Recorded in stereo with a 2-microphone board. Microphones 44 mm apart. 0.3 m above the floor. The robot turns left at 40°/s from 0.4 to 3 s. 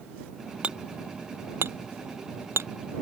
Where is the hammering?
25° right (ahead or behind); by 2.7 s 70° right (ahead or behind).